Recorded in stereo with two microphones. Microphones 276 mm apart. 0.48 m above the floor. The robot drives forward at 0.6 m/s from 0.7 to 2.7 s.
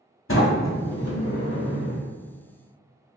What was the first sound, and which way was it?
A sliding door, 50° left (ahead or behind).